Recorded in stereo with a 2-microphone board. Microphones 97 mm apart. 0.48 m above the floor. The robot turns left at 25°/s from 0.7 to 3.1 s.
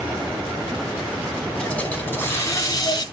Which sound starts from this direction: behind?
A hiss, at 1.6 s.